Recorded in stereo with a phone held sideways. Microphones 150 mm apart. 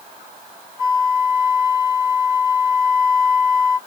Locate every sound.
0.8 s a flute: 20° right (ahead or behind), 3.5 m